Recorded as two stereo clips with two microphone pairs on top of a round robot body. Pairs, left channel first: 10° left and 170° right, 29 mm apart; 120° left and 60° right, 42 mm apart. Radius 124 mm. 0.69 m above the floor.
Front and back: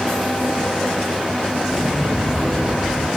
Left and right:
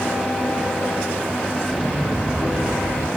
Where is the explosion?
115° left, 4.5 m.